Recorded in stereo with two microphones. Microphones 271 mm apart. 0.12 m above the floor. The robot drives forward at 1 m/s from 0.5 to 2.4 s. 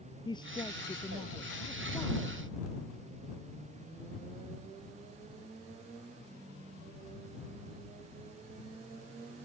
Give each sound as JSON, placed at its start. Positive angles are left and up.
{"t": 0.2, "sound": "a woman speaking", "side_deg": 15}